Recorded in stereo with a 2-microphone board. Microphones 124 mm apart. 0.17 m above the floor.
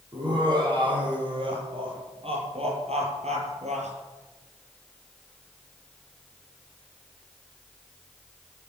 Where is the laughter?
35° right (ahead or behind), 7 m; by 3.9 s 65° right (ahead or behind), 5 m.